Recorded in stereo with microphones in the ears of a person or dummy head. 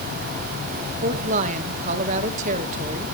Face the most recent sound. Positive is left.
turn(degrees=-45)  # may be behind; listen again after turning